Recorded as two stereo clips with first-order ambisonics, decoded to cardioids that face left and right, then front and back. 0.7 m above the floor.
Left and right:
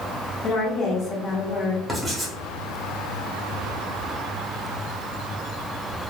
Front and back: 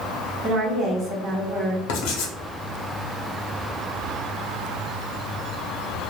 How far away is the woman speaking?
About 0.8 m.